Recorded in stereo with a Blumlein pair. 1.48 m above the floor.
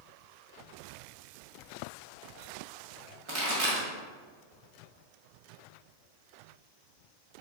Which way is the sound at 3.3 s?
40° right.